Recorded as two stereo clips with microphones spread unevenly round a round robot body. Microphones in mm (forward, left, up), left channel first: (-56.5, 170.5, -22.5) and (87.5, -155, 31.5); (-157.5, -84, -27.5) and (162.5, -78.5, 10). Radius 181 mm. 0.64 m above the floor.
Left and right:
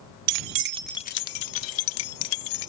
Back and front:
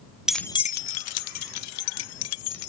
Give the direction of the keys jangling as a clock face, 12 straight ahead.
3 o'clock.